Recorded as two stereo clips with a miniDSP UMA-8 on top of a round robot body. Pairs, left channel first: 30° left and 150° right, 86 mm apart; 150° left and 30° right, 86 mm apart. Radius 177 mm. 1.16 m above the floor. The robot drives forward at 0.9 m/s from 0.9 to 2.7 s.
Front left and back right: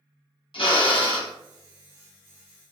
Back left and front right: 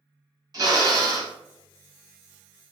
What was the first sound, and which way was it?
A drill, 20° left.